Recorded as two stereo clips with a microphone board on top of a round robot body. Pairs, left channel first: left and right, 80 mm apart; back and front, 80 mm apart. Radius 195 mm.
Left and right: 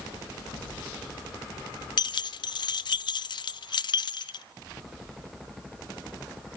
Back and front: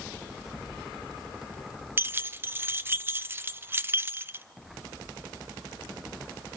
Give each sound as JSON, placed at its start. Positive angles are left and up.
{"t": 2.0, "sound": "keys jangling", "azimuth_deg": 65, "distance_m": 0.7}